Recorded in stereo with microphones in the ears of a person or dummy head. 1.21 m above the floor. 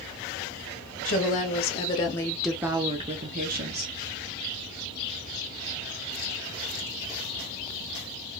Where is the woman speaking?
45° left (ahead or behind), 0.9 m; by 3.9 s 45° right (ahead or behind), 0.9 m.